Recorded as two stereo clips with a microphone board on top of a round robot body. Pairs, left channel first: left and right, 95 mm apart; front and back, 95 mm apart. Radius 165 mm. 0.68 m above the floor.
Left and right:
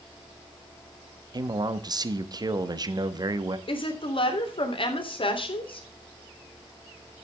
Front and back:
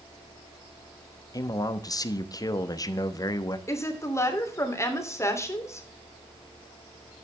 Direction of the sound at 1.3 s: 45° right.